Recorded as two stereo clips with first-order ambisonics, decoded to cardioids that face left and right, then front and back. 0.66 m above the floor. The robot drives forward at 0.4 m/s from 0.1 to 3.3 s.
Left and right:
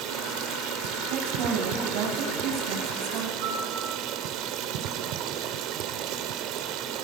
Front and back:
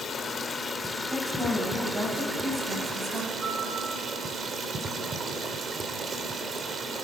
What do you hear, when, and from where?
0.0 s running water: 65° right, 1.6 m; by 7.0 s 115° right, 1.6 m
1.1 s a woman speaking: 105° right, 4.5 m; by 3.3 s 115° right, 5 m
3.4 s a piano: 110° right, 4 m